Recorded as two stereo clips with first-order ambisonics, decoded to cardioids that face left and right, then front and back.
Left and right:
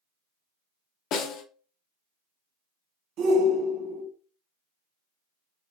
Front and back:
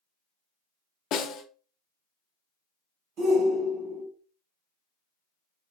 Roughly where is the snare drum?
Ahead left.